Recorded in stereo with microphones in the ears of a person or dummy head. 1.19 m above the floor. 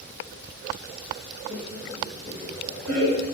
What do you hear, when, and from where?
1.5 s laughter: 80° right, 1.7 m